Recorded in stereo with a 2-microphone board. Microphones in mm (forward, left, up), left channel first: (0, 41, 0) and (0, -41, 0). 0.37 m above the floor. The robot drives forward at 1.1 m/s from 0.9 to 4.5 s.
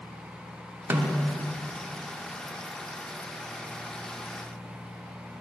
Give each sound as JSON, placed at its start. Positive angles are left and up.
{"t": 0.9, "sound": "a snare drum", "side_deg": -25, "distance_m": 0.8}